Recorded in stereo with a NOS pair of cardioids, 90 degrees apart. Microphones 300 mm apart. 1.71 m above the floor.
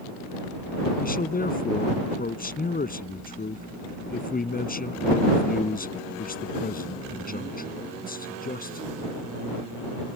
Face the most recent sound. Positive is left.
turn(degrees=25)